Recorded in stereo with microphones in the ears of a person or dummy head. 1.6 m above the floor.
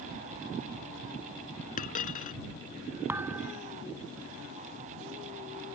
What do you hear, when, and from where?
1.8 s a dropped coin: 40° left (ahead or behind)
3.1 s a thud: 10° right (ahead or behind)